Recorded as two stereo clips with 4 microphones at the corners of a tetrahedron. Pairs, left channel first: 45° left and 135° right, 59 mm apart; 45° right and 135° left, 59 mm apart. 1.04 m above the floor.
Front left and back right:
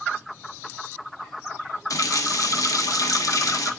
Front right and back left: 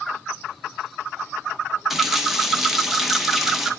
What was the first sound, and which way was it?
A running tap, 50° left.